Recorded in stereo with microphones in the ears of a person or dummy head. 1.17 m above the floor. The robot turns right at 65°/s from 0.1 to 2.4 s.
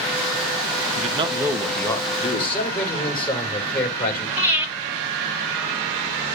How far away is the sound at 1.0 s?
About 0.9 m.